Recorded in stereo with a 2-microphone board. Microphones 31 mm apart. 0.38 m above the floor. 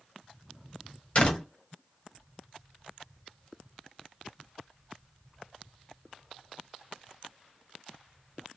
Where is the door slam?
35° left (ahead or behind), 1.2 m.